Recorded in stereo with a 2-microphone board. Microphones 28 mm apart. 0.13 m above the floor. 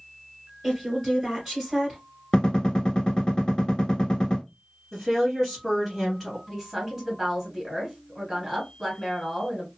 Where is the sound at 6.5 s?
15° right (ahead or behind), 1.7 m.